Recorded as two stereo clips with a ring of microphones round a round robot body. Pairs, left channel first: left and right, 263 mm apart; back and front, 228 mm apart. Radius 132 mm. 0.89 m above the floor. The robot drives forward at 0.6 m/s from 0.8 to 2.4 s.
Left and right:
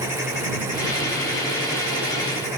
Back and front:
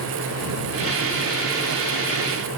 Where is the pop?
No pop in this recording.